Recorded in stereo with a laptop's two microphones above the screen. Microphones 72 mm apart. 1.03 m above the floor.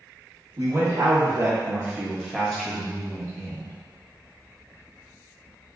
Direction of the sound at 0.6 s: 45° right (ahead or behind).